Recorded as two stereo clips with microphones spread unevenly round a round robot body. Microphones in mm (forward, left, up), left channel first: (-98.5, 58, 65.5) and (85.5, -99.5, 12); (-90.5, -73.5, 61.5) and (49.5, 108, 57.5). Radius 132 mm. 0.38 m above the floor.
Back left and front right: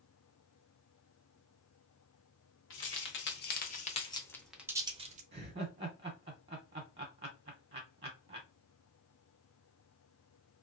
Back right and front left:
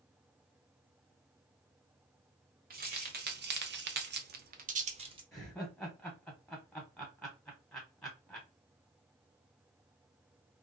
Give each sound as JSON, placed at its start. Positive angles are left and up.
{"t": 2.7, "sound": "keys jangling", "azimuth_deg": 100, "distance_m": 1.2}
{"t": 5.3, "sound": "laughter", "azimuth_deg": -40, "distance_m": 0.9}